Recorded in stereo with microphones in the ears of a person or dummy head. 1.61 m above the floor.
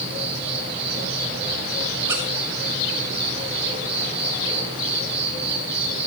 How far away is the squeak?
About 1.0 m.